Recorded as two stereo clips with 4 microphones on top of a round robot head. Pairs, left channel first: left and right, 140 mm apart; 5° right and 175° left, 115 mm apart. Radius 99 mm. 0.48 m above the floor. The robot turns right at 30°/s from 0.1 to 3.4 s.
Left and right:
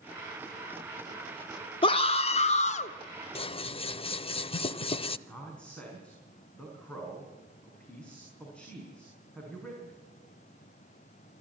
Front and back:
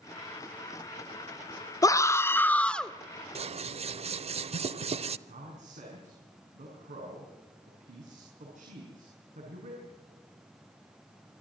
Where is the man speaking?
170° left, 6 m.